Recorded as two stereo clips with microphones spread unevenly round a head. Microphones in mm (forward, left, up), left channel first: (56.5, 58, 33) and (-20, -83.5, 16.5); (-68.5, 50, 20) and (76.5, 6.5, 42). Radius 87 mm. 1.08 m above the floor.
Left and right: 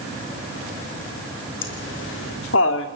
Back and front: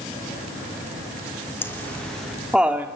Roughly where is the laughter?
Left.